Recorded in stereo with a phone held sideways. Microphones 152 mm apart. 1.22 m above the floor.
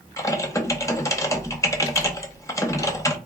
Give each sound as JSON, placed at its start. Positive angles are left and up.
{"t": 0.2, "sound": "typing on a keyboard", "side_deg": 20, "distance_m": 0.7}